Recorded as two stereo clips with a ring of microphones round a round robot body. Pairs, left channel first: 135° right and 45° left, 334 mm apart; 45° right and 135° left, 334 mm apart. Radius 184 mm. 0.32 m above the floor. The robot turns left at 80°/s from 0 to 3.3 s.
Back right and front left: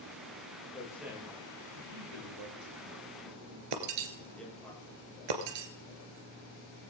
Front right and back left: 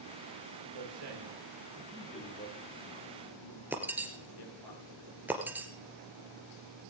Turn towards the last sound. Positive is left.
turn(degrees=50)